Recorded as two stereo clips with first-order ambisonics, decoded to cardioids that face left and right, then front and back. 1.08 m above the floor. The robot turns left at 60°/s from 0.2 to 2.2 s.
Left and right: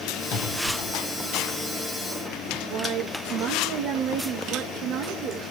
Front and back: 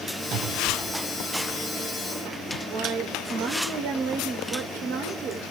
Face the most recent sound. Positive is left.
turn(degrees=-130)